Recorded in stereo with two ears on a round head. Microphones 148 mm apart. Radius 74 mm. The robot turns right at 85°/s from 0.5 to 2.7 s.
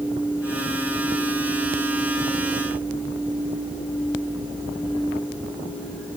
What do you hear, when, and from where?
Only background noise.